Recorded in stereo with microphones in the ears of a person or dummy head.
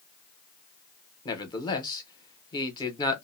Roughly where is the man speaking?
Left.